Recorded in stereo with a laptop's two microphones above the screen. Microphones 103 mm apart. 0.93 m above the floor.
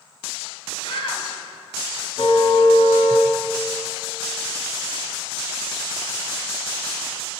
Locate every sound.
0.8 s a shout: 55° left (ahead or behind), 5.5 m
2.2 s a car horn: 60° left (ahead or behind), 3.5 m